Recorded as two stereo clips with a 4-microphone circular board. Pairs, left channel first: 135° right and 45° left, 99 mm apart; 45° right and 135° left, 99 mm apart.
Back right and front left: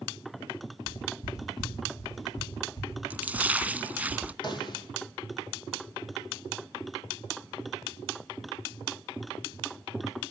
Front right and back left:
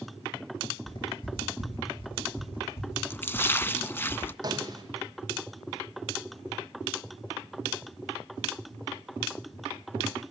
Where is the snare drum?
175° right, 3.5 m.